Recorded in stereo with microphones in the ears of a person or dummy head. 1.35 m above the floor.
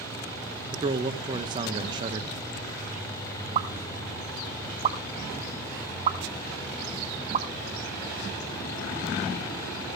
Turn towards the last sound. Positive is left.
turn(degrees=-35)  # may be behind; listen again after turning